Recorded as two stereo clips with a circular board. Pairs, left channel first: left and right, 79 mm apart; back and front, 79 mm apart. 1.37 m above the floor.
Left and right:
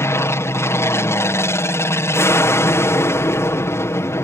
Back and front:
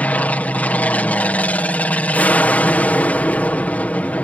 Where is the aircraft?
120° left.